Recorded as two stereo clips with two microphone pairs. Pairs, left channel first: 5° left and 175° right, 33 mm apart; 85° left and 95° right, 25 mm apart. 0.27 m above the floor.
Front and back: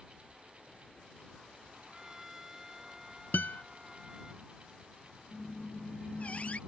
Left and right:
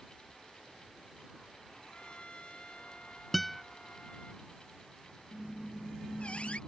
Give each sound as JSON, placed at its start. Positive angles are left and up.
{"t": 1.9, "sound": "a trumpet", "azimuth_deg": 110}
{"t": 3.3, "sound": "a guitar", "azimuth_deg": -5}
{"t": 5.3, "sound": "a squeak", "azimuth_deg": 50}